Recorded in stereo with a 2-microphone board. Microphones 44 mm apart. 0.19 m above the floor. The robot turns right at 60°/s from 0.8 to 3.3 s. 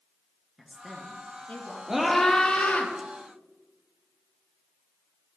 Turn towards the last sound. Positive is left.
turn(degrees=75)